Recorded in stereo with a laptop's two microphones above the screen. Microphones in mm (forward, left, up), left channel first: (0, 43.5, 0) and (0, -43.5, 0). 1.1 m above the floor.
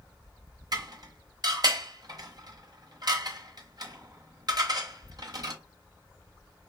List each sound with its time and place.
0.7 s dishes clattering: 50° right (ahead or behind), 0.8 m